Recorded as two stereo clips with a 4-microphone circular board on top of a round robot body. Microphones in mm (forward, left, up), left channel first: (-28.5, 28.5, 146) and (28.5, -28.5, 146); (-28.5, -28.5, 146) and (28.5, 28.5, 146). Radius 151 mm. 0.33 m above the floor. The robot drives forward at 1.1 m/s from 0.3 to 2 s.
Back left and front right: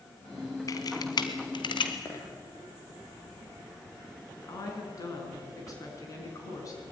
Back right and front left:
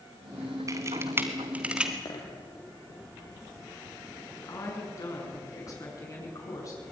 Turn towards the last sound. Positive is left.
turn(degrees=180)